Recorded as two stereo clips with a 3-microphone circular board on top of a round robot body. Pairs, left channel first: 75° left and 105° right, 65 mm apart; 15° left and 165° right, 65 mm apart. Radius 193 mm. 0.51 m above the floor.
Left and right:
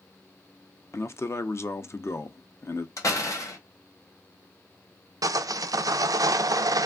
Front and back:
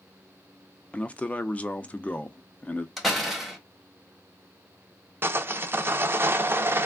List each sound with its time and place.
0.9 s a man speaking: 75° left, 0.7 m
3.0 s a door slam: 105° left, 1.4 m
5.2 s sawing: 115° right, 0.5 m